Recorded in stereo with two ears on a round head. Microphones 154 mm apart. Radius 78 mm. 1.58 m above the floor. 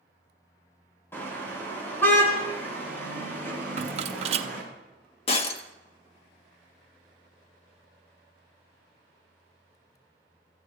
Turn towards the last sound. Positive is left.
turn(degrees=40)  # may be behind; listen again after turning